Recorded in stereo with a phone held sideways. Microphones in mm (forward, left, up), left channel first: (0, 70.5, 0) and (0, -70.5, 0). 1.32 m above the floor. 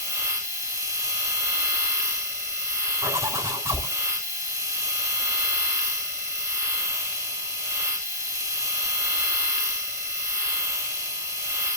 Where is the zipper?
20° right (ahead or behind), 6 m.